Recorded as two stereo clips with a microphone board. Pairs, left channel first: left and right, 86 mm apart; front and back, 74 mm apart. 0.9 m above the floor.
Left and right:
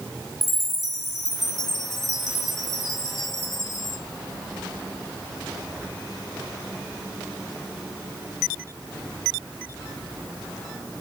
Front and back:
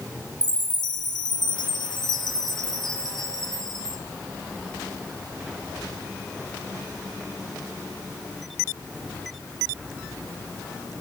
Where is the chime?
Straight ahead, 1.9 m.